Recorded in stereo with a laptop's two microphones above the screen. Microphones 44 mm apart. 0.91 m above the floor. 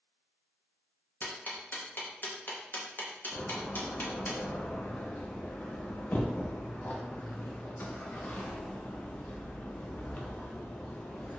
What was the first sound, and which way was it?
Ticking, 45° left (ahead or behind).